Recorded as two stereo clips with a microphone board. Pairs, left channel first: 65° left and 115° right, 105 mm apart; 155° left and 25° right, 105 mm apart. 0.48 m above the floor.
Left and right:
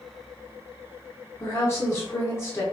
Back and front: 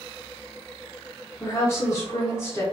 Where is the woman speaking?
115° left, 0.8 m.